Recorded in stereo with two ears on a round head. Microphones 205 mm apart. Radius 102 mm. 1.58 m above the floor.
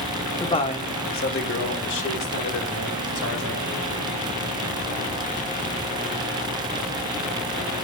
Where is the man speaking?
15° left (ahead or behind), 0.9 m; by 3.8 s 70° left (ahead or behind), 2 m.